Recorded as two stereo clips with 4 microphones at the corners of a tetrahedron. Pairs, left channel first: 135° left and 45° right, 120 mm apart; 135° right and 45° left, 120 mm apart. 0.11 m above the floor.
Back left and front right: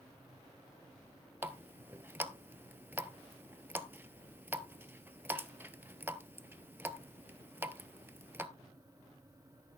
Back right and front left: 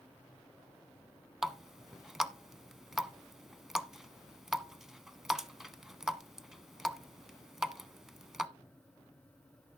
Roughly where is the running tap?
Ahead right.